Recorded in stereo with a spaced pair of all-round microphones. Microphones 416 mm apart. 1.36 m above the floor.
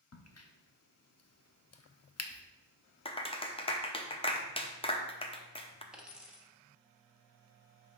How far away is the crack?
About 0.6 m.